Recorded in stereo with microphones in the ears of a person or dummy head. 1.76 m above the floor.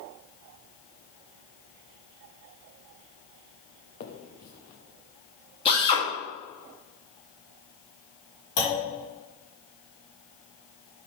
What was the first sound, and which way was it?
A finger snap, 55° left (ahead or behind).